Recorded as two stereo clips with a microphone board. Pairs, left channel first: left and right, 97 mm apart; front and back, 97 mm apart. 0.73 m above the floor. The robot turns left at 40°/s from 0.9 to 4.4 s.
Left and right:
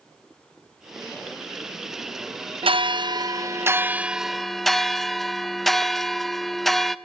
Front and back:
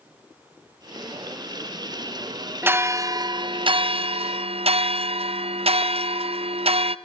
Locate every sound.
2.6 s a bell: 110° right, 0.5 m; by 7.0 s straight behind, 0.5 m